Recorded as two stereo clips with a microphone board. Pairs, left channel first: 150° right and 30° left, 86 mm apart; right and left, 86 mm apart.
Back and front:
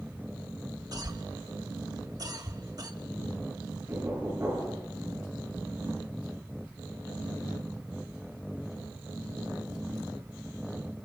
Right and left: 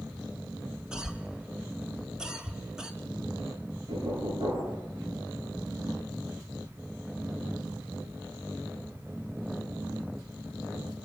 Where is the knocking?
85° left, 5 m.